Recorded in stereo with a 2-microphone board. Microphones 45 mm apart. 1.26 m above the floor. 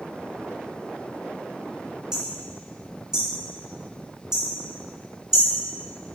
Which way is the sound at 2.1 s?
15° right (ahead or behind).